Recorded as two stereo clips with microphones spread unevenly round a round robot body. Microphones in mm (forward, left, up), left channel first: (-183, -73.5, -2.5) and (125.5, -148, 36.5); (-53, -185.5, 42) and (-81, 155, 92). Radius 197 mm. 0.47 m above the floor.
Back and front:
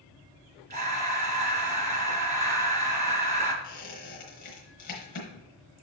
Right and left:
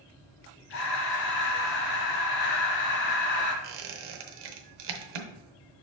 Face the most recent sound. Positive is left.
turn(degrees=100)